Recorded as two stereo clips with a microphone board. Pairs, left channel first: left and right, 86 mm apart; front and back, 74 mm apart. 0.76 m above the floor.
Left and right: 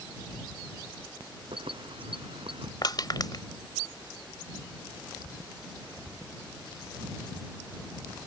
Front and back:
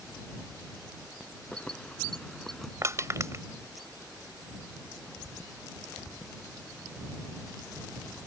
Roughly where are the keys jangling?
Right.